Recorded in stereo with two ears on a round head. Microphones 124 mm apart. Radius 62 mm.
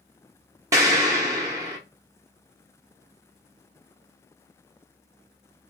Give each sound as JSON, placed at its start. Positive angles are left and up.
{"t": 0.7, "sound": "an explosion", "side_deg": -20, "distance_m": 0.9}